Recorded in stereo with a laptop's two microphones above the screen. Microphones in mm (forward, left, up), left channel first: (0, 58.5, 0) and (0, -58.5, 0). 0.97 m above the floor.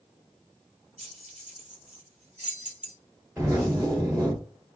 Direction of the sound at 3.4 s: 25° right (ahead or behind).